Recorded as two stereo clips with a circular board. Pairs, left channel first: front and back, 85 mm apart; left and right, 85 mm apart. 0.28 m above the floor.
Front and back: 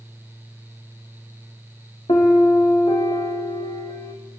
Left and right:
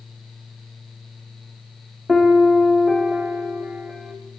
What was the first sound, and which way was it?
A piano, 5° right.